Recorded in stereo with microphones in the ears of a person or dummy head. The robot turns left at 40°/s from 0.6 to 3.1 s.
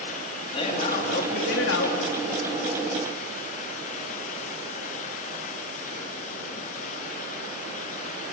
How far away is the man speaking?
About 2.5 m.